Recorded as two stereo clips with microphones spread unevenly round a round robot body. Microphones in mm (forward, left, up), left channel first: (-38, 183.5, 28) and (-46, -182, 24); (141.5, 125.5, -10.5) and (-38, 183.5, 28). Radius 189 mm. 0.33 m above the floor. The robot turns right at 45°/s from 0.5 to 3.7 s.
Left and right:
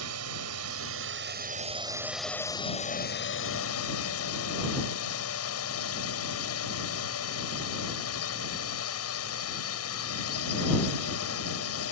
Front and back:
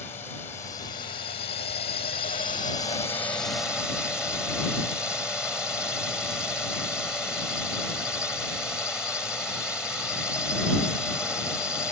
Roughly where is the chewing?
No chewing in this recording.